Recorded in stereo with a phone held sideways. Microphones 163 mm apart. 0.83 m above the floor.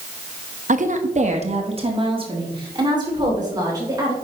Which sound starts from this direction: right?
A woman speaking, at 0.7 s.